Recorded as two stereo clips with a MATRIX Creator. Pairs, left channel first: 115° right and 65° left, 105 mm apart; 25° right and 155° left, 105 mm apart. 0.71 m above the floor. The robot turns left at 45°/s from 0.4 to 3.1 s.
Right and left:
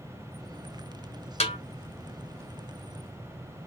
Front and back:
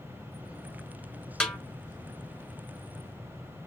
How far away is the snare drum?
About 1.5 m.